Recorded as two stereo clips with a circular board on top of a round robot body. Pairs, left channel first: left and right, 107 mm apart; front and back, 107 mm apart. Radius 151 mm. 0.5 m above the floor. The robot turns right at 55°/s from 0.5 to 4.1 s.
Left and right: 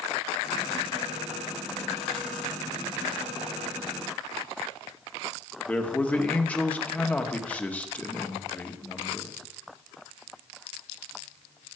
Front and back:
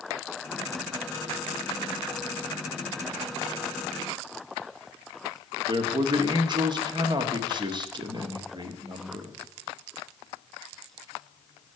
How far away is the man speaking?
About 1.6 m.